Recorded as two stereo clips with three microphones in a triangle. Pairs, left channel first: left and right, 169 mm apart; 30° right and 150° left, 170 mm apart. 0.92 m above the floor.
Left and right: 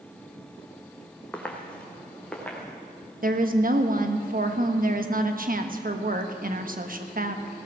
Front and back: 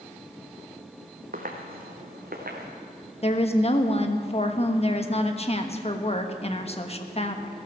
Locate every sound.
1.3 s footsteps: 170° left, 2.0 m; by 2.7 s 175° left, 3.5 m
3.2 s a woman speaking: 75° right, 1.2 m